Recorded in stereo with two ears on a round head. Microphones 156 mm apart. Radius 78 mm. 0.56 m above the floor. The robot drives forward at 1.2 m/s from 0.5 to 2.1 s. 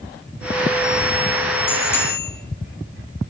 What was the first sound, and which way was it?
A bicycle bell, 15° left (ahead or behind).